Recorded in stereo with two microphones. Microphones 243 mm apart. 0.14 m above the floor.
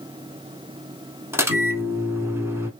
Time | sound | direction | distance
1.3 | a microwave | 10° right (ahead or behind) | 0.9 m